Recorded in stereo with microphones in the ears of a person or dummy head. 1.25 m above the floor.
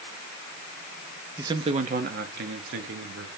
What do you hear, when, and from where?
1.4 s a man speaking: 15° right (ahead or behind), 0.7 m; by 3.3 s 70° right (ahead or behind), 1.6 m